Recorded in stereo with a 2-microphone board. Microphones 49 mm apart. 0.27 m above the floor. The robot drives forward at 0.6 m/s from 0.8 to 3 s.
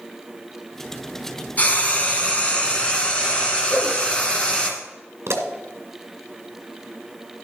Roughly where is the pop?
Right.